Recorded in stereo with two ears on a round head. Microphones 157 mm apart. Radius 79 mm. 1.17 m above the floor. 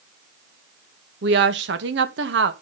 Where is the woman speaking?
70° right (ahead or behind), 1.4 m.